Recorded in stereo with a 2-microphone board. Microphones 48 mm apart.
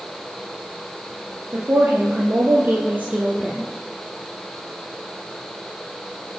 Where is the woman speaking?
65° right (ahead or behind), 3 m; by 3.7 s 25° right (ahead or behind), 2.5 m.